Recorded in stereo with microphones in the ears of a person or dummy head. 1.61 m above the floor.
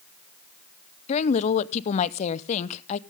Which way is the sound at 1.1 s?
35° left (ahead or behind).